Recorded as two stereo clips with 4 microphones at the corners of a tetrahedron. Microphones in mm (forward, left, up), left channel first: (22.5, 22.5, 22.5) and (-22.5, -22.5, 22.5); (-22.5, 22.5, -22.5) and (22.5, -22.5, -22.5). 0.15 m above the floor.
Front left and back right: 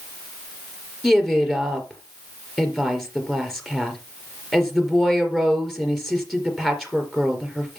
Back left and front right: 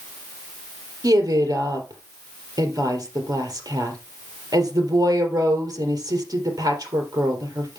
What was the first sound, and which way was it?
A woman speaking, 40° right.